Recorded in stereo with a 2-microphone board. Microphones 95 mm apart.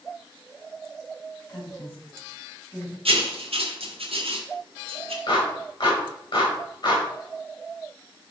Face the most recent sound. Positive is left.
turn(degrees=50)  # may be behind; listen again after turning